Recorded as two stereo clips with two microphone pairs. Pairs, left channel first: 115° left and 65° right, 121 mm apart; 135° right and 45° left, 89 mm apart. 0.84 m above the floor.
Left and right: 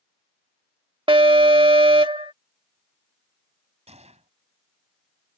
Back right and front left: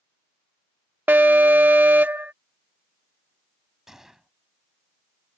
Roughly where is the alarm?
Ahead.